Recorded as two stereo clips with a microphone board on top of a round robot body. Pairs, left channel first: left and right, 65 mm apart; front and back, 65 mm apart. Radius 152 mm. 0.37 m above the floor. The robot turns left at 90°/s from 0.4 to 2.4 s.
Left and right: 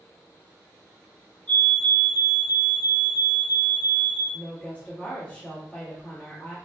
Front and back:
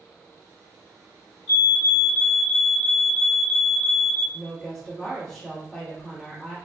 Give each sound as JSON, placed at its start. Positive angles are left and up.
{"t": 1.5, "sound": "a fire alarm", "azimuth_deg": 70, "distance_m": 2.0}
{"t": 4.3, "sound": "a woman speaking", "azimuth_deg": 75, "distance_m": 1.5}